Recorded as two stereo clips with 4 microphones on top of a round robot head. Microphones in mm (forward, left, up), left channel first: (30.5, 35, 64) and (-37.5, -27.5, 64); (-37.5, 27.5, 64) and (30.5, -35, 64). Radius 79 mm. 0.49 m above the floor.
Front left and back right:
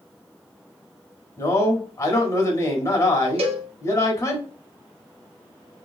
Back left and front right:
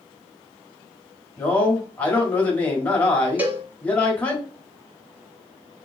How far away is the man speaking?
About 1.4 m.